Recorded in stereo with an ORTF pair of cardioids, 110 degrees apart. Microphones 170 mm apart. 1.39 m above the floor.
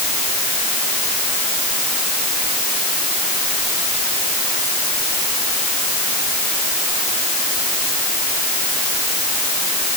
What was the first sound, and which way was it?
Only background noise.